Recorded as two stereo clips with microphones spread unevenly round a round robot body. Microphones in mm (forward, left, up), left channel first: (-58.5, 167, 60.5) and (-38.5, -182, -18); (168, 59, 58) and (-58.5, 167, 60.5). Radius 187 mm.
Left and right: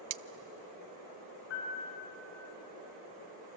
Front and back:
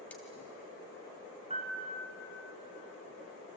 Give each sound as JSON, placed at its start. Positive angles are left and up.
{"t": 0.1, "sound": "cutlery clinking", "azimuth_deg": -110, "distance_m": 0.6}
{"t": 1.5, "sound": "a piano", "azimuth_deg": 90, "distance_m": 6.5}